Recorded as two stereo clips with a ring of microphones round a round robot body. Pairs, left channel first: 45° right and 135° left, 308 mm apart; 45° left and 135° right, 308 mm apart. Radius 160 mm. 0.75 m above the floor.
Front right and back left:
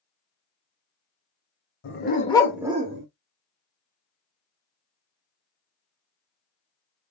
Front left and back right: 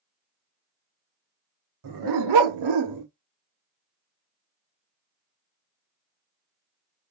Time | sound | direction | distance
1.8 | a dog barking | 100° right | 1.5 m